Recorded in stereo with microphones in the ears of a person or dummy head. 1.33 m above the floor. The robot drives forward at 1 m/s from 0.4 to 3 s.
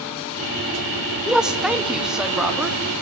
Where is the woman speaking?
Centre (ahead or behind), 2 m.